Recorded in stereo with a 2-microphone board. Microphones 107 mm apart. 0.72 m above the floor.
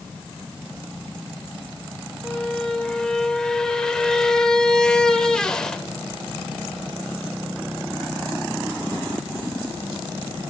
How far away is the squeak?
About 1.1 m.